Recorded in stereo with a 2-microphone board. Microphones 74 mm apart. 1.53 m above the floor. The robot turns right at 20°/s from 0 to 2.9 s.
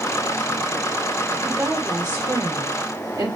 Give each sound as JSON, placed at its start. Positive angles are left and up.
{"t": 1.4, "sound": "a woman speaking", "side_deg": -35, "distance_m": 1.2}